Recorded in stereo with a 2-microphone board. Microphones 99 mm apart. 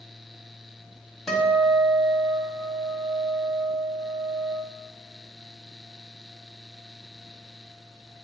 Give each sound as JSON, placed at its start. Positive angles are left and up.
{"t": 1.3, "sound": "a guitar", "side_deg": 5, "distance_m": 1.4}